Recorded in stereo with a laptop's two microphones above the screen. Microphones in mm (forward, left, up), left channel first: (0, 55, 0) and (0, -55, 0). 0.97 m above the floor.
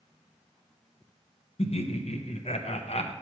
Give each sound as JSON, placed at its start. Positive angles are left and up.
{"t": 1.6, "sound": "laughter", "side_deg": 60, "distance_m": 0.6}